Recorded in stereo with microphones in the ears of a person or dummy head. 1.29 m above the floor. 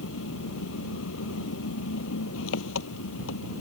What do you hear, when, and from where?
0.0 s an engine running: 70° left (ahead or behind)